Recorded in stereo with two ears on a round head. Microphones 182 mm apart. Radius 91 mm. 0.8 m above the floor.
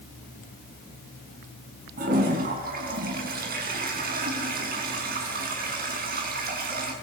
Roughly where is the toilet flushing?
Right.